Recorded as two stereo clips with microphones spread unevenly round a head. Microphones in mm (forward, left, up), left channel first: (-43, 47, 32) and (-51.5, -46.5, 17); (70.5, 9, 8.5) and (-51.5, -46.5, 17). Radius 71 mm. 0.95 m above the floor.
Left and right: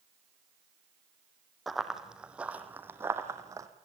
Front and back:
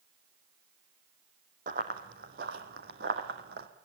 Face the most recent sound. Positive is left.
turn(degrees=-155)